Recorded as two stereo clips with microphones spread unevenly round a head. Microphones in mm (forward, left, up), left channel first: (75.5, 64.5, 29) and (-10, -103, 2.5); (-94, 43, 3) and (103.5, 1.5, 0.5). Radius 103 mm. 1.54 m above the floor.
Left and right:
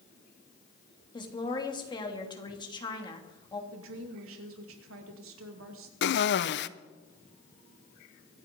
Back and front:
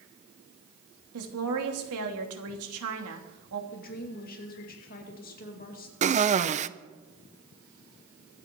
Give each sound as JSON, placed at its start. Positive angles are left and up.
{"t": 1.1, "sound": "a woman speaking", "azimuth_deg": -5, "distance_m": 3.0}
{"t": 3.7, "sound": "a woman speaking", "azimuth_deg": -140, "distance_m": 2.5}
{"t": 6.0, "sound": "a cough", "azimuth_deg": 45, "distance_m": 0.8}